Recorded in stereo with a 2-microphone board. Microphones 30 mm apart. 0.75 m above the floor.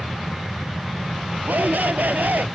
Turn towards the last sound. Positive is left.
turn(degrees=-85)